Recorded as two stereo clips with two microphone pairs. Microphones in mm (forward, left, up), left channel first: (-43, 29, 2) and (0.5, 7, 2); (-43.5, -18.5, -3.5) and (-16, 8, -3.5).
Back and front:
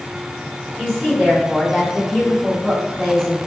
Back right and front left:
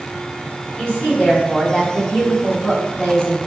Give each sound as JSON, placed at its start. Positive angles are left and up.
{"t": 0.8, "sound": "a woman speaking", "azimuth_deg": -95, "distance_m": 1.7}